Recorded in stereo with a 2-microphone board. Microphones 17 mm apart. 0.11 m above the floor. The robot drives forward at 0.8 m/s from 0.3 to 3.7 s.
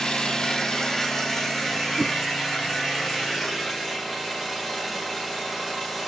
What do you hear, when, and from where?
0.0 s an engine running: 60° left (ahead or behind), 0.8 m; by 6.1 s 15° left (ahead or behind), 3 m
2.0 s a whoosh: 25° right (ahead or behind), 0.5 m